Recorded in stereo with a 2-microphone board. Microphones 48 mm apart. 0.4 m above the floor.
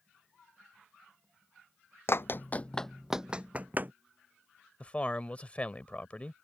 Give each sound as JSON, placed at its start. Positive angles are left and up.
{"t": 2.1, "sound": "running footsteps", "side_deg": 60}
{"t": 4.8, "sound": "a man speaking", "side_deg": 25}